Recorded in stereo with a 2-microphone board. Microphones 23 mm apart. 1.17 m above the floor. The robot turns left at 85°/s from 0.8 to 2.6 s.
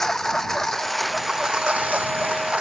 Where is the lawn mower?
20° left; by 2.6 s 130° right.